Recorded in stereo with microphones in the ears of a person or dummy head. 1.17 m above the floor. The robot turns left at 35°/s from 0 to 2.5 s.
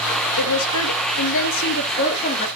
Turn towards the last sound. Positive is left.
turn(degrees=30)